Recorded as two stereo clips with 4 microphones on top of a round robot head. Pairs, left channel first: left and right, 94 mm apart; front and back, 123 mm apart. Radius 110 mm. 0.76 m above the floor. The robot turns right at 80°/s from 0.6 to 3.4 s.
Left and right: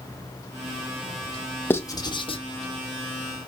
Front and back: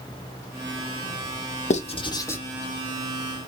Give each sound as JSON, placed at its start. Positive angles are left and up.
{"t": 1.7, "sound": "writing", "azimuth_deg": 20, "distance_m": 2.5}